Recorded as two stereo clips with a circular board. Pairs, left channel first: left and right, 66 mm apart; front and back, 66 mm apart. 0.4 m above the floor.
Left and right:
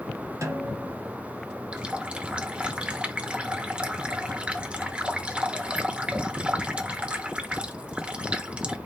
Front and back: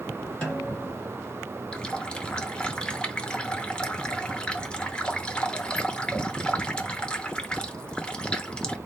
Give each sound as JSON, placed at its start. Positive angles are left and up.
{"t": 0.4, "sound": "a snare drum", "azimuth_deg": -75, "distance_m": 2.5}
{"t": 1.7, "sound": "a running tap", "azimuth_deg": -50, "distance_m": 0.6}